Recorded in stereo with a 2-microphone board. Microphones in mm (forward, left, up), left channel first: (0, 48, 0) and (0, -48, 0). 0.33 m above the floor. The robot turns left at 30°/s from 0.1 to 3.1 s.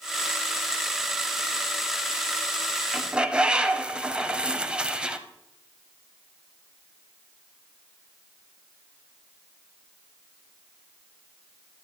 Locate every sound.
2.9 s a bird: 5° right (ahead or behind), 0.8 m; by 5.2 s 10° right (ahead or behind), 0.8 m